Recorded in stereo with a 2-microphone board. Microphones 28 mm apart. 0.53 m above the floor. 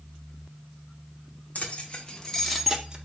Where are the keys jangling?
50° left (ahead or behind), 0.8 m; by 3.0 s 25° right (ahead or behind), 0.6 m.